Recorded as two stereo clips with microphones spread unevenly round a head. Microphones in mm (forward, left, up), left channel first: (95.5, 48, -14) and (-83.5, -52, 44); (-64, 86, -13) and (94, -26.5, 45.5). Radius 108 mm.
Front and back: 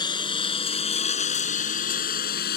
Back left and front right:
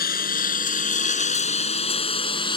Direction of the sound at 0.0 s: 100° left.